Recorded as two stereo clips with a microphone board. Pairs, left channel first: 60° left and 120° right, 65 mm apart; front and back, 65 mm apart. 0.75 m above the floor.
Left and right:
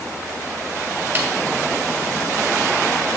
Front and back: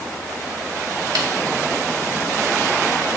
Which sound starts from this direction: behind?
A snare drum, at 1.1 s.